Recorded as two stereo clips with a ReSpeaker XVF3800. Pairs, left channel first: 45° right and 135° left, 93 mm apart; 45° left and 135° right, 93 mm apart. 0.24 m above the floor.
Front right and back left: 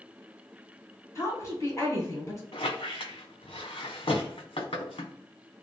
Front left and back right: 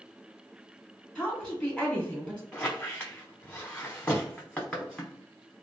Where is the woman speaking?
30° right, 1.5 m.